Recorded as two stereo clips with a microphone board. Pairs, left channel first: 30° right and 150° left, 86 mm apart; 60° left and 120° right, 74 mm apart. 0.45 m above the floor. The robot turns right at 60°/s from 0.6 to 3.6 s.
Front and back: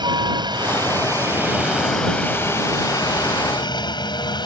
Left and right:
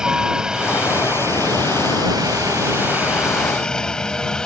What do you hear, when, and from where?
0.0 s a helicopter: 160° left; by 4.5 s 20° right